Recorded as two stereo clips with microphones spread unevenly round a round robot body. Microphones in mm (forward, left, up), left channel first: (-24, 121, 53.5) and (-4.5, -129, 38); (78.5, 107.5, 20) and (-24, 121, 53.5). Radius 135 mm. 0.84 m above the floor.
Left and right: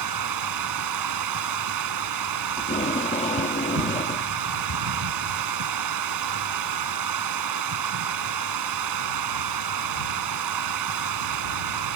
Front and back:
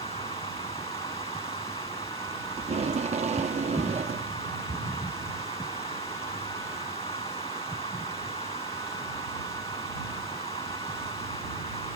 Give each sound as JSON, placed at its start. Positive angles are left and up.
{"t": 0.0, "sound": "running water", "azimuth_deg": -80}
{"t": 2.6, "sound": "tape being pulled", "azimuth_deg": 160}